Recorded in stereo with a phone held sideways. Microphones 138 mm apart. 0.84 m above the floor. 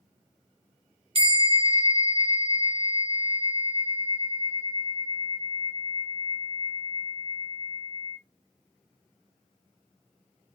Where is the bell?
40° right (ahead or behind), 1.7 m.